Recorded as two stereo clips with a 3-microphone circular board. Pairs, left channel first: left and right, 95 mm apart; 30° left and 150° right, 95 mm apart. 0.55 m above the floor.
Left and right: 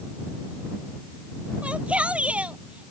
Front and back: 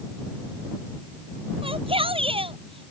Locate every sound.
1.6 s a shout: 165° right